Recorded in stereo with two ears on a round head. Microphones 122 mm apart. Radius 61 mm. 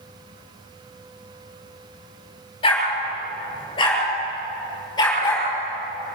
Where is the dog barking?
35° left (ahead or behind), 6.5 m; by 5.5 s 25° left (ahead or behind), 8 m.